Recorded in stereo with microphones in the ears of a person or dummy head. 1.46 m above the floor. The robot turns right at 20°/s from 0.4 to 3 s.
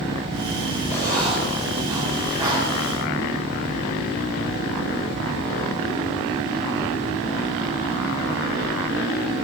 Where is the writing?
15° left (ahead or behind), 7 m; by 2.6 s 20° right (ahead or behind), 7 m.